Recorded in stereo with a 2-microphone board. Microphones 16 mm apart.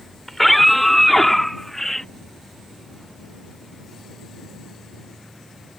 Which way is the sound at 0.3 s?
10° left (ahead or behind).